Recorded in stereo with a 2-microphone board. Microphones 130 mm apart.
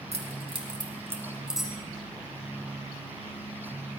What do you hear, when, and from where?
0.1 s keys jangling: 55° right (ahead or behind), 2.5 m; by 1.7 s centre (ahead or behind), 3 m